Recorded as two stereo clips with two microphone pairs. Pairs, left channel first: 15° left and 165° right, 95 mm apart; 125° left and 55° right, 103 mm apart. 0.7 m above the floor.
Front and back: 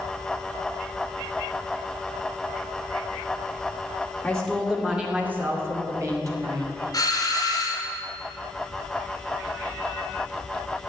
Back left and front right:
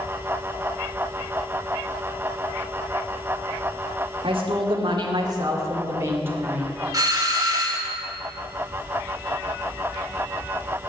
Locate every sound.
4.2 s a woman speaking: 65° right, 2.0 m; by 6.7 s 125° right, 3 m
6.9 s a doorbell: 15° right, 2 m